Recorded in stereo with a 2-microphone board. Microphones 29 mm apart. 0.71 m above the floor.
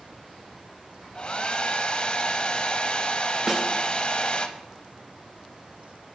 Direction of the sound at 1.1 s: 35° left (ahead or behind).